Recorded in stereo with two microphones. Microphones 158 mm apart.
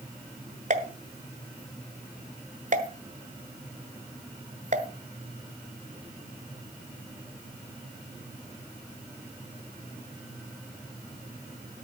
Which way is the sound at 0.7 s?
50° right (ahead or behind).